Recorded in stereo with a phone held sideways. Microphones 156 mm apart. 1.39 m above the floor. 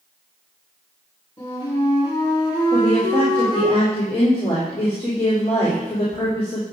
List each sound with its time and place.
1.4 s a flute: 35° left (ahead or behind), 5 m
2.7 s a woman speaking: 40° left (ahead or behind), 3.5 m